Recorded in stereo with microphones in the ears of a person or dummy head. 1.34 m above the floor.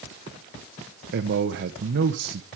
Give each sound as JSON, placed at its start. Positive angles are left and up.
{"t": 1.1, "sound": "a man speaking", "side_deg": -55, "distance_m": 1.3}